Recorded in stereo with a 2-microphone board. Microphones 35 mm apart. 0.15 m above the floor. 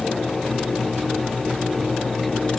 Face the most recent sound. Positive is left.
No sound to turn to.